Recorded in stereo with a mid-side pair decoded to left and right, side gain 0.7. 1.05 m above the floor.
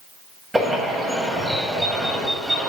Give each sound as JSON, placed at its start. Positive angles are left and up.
{"t": 0.5, "sound": "a bird", "azimuth_deg": -10, "distance_m": 1.9}